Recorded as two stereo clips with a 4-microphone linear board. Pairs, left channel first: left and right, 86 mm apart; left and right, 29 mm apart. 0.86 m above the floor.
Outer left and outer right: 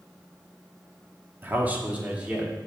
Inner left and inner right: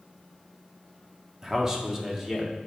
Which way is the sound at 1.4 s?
25° right (ahead or behind).